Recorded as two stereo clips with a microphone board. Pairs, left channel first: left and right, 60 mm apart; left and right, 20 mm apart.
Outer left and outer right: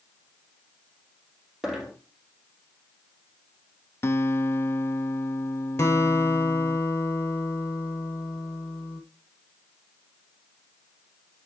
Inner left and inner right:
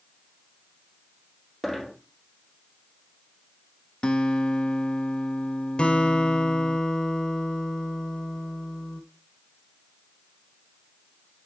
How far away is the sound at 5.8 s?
About 1.6 m.